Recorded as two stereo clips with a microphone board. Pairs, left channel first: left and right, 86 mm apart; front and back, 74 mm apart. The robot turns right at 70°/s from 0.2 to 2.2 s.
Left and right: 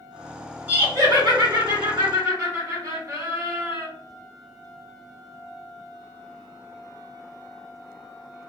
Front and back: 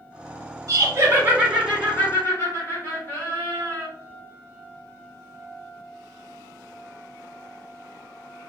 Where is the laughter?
155° right, 1.4 m; by 3.9 s 50° right, 1.4 m.